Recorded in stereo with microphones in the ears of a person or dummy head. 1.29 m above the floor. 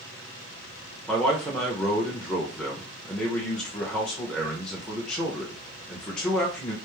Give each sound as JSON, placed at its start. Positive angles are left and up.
{"t": 1.1, "sound": "a man speaking", "side_deg": 0, "distance_m": 0.9}